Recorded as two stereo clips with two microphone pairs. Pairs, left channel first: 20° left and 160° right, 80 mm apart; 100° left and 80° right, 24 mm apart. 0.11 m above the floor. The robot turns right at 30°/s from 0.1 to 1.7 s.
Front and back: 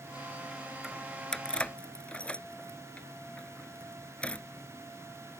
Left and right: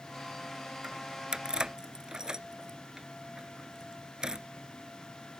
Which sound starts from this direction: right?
Keys jangling, at 0.8 s.